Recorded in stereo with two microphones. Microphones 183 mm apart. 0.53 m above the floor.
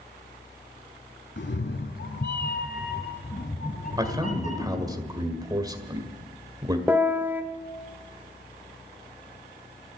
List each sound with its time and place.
1.4 s a cat meowing: 75° left (ahead or behind), 1.0 m; by 5.0 s 40° left (ahead or behind), 2.5 m
4.0 s a man speaking: 20° right (ahead or behind), 1.9 m
6.9 s a piano: 10° right (ahead or behind), 1.0 m